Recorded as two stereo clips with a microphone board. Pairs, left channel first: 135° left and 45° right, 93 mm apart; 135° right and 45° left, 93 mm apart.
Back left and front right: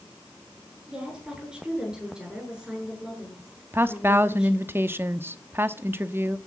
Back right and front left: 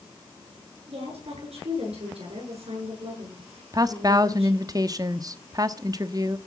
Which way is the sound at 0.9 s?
35° left.